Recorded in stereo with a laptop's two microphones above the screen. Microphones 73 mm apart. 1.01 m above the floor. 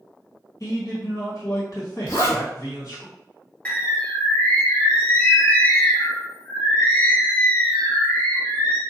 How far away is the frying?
No frying in this recording.